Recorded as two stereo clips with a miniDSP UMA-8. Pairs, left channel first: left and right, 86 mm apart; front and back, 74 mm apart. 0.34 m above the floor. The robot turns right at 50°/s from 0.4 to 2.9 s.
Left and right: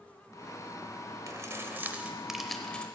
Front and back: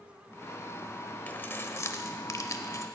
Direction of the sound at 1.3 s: 60° right.